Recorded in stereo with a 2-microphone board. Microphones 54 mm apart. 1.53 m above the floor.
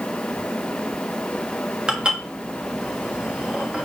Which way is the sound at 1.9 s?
15° right (ahead or behind).